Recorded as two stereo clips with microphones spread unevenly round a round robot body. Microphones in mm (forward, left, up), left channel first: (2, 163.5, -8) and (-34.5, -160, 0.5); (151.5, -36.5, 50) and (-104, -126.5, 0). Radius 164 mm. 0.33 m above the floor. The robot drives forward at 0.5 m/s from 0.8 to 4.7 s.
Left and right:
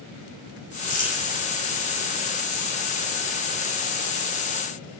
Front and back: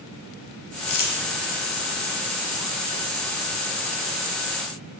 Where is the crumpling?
15° left, 4 m.